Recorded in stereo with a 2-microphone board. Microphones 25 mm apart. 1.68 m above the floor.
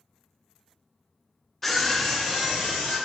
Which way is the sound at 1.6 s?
10° left (ahead or behind).